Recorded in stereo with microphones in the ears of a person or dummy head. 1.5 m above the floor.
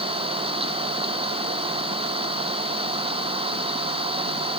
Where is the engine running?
30° right (ahead or behind).